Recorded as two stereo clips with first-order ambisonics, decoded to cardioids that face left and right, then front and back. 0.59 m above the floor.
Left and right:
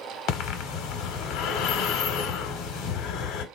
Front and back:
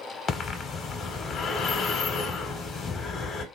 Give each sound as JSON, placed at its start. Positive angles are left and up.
{"t": 0.3, "sound": "breathing", "azimuth_deg": 60, "distance_m": 0.7}